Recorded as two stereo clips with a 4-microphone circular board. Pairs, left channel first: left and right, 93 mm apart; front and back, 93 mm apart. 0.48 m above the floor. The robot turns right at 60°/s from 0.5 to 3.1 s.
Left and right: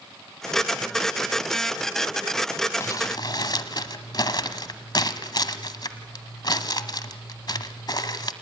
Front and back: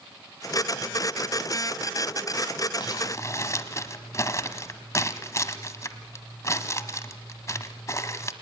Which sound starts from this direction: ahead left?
Crumpling, at 2.8 s.